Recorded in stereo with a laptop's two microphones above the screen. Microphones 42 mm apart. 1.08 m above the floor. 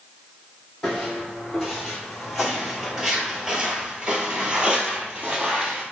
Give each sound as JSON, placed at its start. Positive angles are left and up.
{"t": 0.8, "sound": "footsteps", "side_deg": 5, "distance_m": 1.8}